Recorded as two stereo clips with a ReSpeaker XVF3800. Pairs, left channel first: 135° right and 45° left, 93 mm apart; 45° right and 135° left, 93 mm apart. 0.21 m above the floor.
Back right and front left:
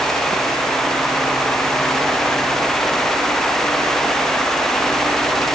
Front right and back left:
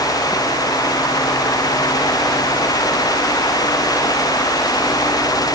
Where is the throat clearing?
I don't hear throat clearing.